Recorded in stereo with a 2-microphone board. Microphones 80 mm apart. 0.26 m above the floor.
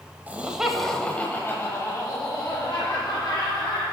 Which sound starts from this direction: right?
Laughter, at 0.3 s.